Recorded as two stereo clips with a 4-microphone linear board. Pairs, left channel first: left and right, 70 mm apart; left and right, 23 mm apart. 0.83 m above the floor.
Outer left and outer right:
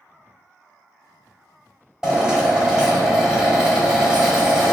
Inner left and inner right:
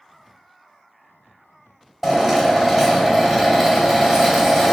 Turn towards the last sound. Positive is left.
turn(degrees=-10)  # may be behind; listen again after turning